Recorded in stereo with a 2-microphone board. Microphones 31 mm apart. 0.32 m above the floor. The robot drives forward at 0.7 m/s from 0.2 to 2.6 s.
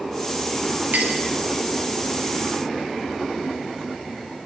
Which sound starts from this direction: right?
A clink, at 0.9 s.